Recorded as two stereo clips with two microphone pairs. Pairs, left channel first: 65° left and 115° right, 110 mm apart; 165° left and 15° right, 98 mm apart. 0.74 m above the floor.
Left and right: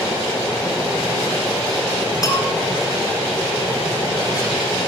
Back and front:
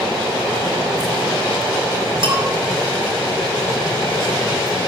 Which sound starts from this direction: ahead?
A bell, at 2.2 s.